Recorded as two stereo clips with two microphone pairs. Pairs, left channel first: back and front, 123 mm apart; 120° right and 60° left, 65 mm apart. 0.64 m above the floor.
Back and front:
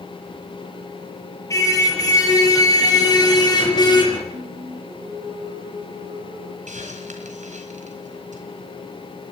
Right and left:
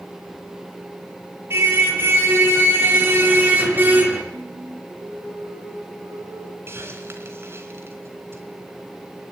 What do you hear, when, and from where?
1.5 s a car horn: 110° left, 7.5 m; by 4.2 s 125° left, 4.5 m
4.3 s singing: 35° left, 3 m
6.7 s a hiss: 10° left, 3.5 m